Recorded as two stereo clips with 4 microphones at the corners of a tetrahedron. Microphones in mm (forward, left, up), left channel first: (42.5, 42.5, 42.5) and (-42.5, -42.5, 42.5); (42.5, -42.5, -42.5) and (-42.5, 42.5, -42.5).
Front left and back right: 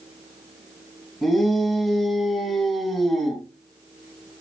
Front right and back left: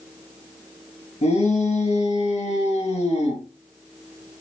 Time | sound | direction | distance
1.2 | a shout | 45° right | 3.5 m